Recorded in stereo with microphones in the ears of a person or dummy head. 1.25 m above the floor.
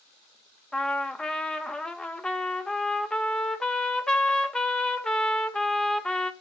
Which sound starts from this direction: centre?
A trumpet, at 0.7 s.